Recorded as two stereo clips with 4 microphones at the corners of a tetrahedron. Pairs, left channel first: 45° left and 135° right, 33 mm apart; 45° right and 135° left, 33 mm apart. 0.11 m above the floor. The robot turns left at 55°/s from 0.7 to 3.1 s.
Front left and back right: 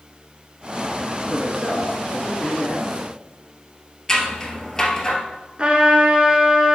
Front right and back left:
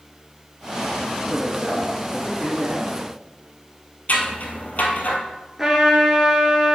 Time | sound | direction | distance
1.3 | a man speaking | 170° right | 1.4 m
4.1 | scissors | 20° right | 1.2 m
5.6 | a trumpet | 155° right | 1.3 m